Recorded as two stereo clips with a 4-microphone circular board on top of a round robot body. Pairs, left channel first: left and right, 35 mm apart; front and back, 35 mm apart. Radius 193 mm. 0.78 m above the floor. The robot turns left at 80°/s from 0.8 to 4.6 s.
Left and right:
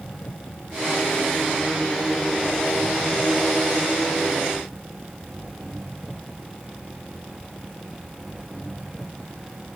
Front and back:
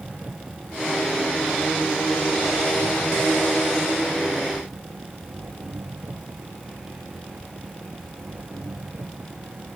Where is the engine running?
130° left; by 9.8 s 175° right.